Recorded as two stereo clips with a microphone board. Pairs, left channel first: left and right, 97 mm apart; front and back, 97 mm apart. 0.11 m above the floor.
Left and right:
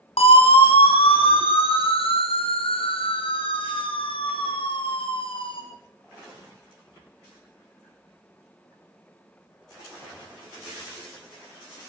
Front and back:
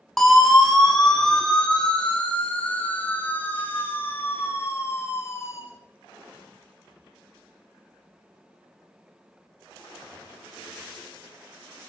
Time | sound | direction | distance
0.2 | a siren | 90° left | 7 m